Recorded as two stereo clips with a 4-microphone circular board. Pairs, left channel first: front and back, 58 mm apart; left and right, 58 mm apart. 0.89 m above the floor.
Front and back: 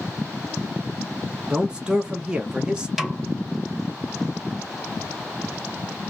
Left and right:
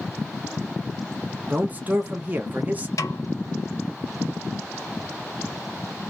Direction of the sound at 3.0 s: 95° left.